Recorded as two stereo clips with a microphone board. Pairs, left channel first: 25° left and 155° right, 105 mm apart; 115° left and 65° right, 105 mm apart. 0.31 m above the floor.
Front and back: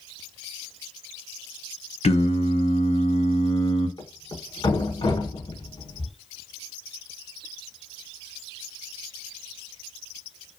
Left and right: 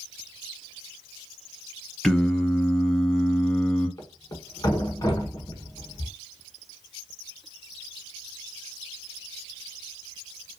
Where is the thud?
60° left, 0.7 m.